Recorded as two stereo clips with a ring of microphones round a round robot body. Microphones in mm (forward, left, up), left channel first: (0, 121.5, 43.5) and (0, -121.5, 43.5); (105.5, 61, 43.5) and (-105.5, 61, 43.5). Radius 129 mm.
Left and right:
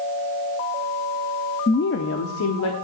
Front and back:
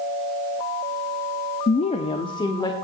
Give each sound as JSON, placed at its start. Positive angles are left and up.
{"t": 1.7, "sound": "a woman speaking", "azimuth_deg": 35, "distance_m": 0.6}